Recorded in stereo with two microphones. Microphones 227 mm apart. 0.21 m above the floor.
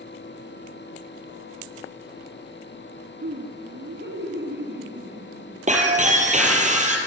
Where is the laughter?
50° right (ahead or behind), 2.5 m.